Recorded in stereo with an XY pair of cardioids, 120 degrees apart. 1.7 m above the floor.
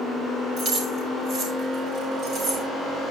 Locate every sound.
0.6 s keys jangling: 60° right, 6 m